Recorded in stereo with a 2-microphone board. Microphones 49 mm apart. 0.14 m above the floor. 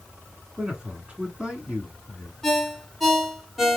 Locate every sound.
0.6 s a man speaking: 20° right (ahead or behind), 1.2 m
2.4 s a ringtone: 5° left (ahead or behind), 1.2 m